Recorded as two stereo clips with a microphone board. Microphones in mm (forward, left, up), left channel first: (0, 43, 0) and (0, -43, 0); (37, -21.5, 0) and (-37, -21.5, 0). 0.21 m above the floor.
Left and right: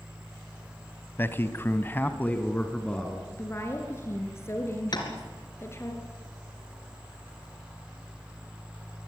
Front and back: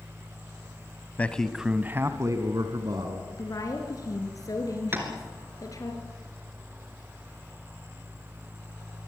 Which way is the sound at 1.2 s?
50° left.